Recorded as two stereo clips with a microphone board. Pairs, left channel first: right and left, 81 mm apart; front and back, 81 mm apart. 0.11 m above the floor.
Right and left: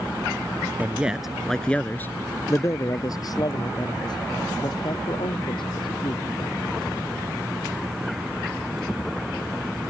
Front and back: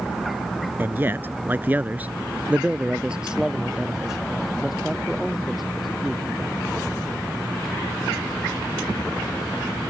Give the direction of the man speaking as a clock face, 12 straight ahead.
7 o'clock.